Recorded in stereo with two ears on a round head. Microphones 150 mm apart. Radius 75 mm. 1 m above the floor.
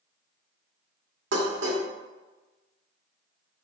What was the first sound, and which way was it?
Dishes clattering, 85° right.